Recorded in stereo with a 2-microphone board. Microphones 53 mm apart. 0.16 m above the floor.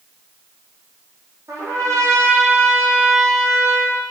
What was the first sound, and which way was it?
A trumpet, 70° right (ahead or behind).